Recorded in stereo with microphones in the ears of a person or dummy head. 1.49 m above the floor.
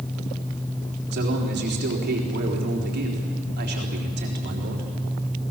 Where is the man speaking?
50° right (ahead or behind), 3.5 m.